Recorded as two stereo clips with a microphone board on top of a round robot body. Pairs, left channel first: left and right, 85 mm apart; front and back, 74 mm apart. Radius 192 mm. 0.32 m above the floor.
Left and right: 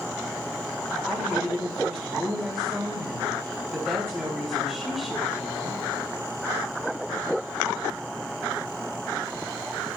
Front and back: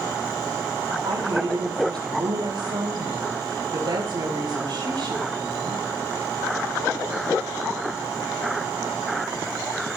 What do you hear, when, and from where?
1.1 s a woman speaking: 170° right, 3.5 m